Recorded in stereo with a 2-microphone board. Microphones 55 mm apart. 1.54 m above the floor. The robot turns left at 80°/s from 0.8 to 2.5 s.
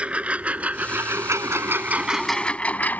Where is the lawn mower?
25° right (ahead or behind); by 3.0 s 35° left (ahead or behind).